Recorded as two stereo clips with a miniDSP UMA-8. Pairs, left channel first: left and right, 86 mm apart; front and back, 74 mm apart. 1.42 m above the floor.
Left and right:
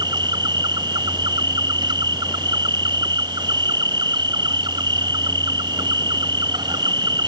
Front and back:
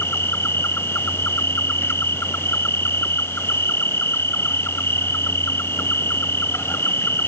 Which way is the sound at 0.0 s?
60° right.